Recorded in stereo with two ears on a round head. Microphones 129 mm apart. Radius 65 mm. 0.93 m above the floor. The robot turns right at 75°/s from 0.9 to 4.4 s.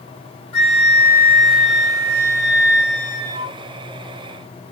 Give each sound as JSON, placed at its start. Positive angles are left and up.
{"t": 0.5, "sound": "a flute", "azimuth_deg": 135, "distance_m": 1.1}